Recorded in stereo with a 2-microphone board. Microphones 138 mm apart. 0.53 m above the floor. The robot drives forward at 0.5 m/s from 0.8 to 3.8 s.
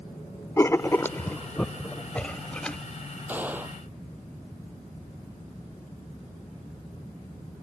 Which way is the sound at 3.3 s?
15° right (ahead or behind).